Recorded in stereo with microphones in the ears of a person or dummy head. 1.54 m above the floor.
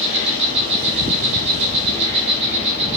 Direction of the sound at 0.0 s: 35° right (ahead or behind).